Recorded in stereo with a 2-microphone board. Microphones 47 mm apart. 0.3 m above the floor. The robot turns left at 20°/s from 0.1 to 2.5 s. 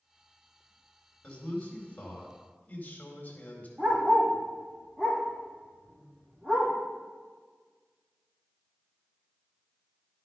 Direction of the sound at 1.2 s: 25° left (ahead or behind).